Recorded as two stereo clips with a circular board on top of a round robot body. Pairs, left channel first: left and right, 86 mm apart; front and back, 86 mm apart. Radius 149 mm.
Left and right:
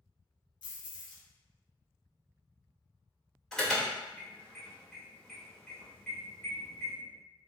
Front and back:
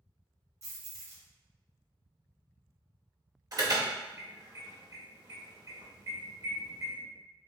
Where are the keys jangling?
125° left, 0.9 m.